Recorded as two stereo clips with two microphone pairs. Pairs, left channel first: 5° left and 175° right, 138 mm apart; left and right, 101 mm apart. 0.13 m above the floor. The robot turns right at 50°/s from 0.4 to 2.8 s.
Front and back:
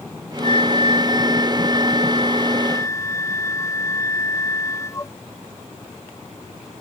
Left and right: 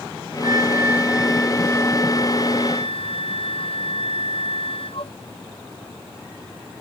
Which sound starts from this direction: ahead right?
A flute, at 0.4 s.